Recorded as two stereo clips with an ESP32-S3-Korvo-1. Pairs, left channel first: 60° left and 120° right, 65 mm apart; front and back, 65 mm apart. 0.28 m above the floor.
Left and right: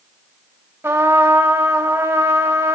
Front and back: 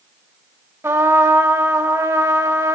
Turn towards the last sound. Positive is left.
turn(degrees=-160)